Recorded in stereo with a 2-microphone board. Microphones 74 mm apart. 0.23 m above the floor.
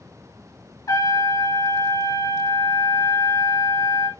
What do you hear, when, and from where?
0.9 s a trumpet: 55° left (ahead or behind), 1.4 m